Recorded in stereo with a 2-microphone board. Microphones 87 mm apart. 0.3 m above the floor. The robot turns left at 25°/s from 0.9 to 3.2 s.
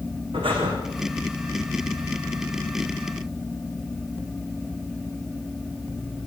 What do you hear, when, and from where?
0.3 s breathing: 75° right (ahead or behind), 9 m